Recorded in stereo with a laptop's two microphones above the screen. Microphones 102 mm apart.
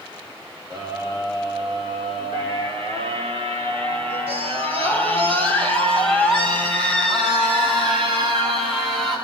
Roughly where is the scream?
Right.